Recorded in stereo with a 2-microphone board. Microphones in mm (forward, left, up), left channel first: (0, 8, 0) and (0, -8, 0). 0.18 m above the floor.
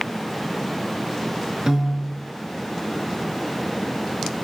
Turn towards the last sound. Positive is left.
turn(degrees=-45)  # may be behind; listen again after turning